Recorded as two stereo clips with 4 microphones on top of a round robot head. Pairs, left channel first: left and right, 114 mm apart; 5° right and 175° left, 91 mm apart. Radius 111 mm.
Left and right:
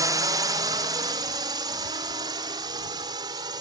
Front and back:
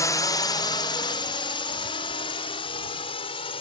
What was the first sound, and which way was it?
A drone, 45° right.